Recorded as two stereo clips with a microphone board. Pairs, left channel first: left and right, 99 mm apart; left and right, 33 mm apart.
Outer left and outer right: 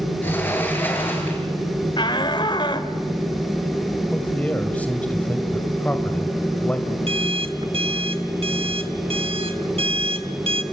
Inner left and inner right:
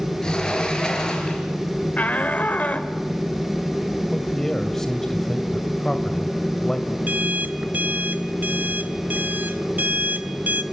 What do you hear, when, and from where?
0.2 s a sliding door: 20° left (ahead or behind), 5.5 m
2.0 s a shout: 55° left (ahead or behind), 2 m
4.1 s a man speaking: 15° left (ahead or behind), 1.9 m
7.1 s an alarm clock: 75° right (ahead or behind), 1.4 m